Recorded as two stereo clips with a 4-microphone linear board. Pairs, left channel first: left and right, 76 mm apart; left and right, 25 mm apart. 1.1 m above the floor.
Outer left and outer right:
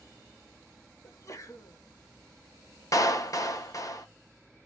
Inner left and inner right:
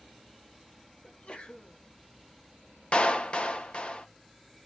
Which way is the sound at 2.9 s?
50° left (ahead or behind).